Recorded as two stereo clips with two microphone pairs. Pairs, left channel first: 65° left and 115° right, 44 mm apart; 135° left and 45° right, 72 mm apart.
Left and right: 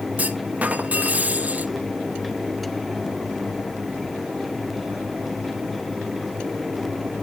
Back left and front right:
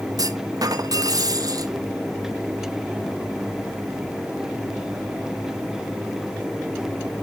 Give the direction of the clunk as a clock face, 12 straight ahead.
2 o'clock.